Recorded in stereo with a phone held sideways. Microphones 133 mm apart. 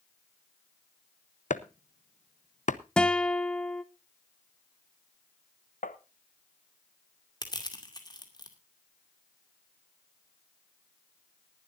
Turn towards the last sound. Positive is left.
turn(degrees=30)  # may be behind; listen again after turning